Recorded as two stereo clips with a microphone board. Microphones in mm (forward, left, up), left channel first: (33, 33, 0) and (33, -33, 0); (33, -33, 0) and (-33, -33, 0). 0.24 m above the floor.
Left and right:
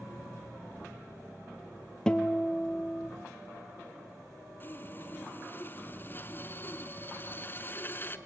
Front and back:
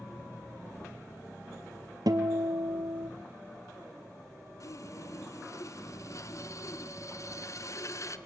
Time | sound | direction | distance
2.1 | a guitar | 165° left | 1.5 m
4.6 | sawing | 35° left | 1.2 m